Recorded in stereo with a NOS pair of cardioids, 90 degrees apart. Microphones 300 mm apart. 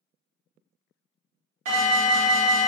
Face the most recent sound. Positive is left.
turn(degrees=-70)